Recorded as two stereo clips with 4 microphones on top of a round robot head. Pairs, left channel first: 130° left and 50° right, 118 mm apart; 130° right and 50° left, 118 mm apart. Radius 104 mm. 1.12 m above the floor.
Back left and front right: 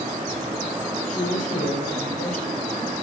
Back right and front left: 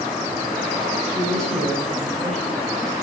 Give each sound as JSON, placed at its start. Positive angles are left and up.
{"t": 1.1, "sound": "a man speaking", "azimuth_deg": 140, "distance_m": 7.5}